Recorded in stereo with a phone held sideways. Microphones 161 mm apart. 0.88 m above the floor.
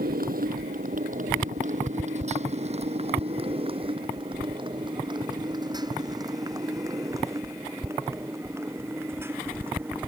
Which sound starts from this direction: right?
A motorcycle, at 0.0 s.